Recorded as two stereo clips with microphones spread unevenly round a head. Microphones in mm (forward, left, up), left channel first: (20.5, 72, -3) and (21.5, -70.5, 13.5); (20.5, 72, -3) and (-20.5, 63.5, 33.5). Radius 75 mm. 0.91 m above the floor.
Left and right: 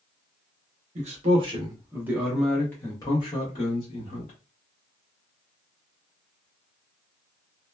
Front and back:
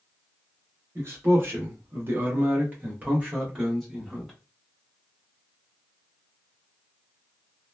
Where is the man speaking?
85° right, 1.0 m; by 4.3 s 85° left, 1.3 m.